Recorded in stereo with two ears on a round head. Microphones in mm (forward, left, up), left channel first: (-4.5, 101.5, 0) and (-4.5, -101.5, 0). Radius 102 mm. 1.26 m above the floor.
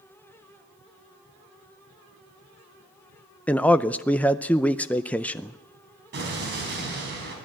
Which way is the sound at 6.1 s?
45° right (ahead or behind).